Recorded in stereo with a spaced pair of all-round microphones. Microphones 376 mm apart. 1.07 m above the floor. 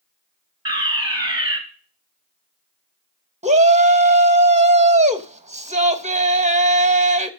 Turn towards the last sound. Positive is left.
turn(degrees=-20)  # may be behind; listen again after turning